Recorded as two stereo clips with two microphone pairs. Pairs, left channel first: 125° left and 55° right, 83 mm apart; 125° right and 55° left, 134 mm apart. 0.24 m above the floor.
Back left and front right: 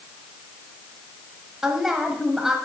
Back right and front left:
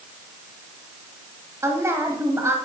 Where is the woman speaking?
20° left, 1.2 m.